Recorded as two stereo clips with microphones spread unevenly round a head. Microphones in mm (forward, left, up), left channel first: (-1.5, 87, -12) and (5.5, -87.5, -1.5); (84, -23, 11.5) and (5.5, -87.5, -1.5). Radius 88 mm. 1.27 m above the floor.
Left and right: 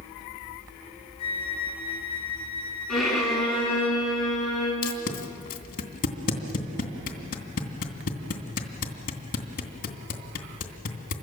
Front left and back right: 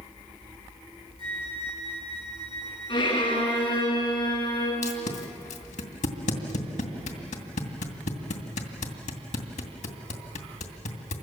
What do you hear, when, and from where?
1.2 s a flute: 105° right, 2 m
2.9 s a violin: 5° left, 8 m
4.8 s tape being pulled: 50° left, 2.5 m